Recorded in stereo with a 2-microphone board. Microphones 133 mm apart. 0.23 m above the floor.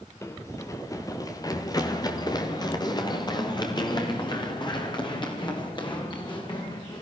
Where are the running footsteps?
20° left (ahead or behind), 1.8 m; by 7.0 s 35° left (ahead or behind), 6 m.